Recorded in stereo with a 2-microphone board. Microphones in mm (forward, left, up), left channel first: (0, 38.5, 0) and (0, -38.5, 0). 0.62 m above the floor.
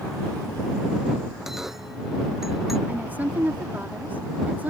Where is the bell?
5° right (ahead or behind).